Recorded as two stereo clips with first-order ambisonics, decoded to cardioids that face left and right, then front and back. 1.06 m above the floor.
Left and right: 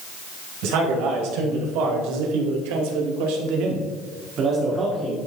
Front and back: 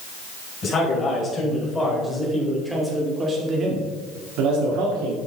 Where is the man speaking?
65° right, 5 m; by 5.2 s 170° right, 2.5 m.